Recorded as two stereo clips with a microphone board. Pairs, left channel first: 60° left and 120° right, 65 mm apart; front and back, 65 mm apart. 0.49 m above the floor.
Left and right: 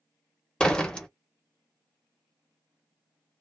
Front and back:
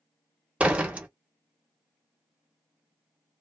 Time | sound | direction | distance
0.6 | a door slam | 125° left | 0.7 m